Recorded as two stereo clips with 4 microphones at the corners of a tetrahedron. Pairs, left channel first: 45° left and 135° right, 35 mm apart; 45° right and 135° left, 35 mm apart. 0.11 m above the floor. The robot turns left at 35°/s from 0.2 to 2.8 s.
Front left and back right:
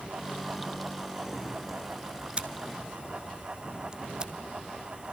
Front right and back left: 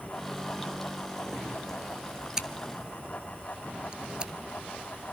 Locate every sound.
2.4 s scissors: 170° right, 1.0 m; by 4.3 s 175° left, 1.0 m